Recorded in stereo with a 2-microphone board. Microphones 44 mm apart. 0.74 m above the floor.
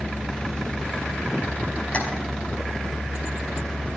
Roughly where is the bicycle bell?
No bicycle bell in this recording.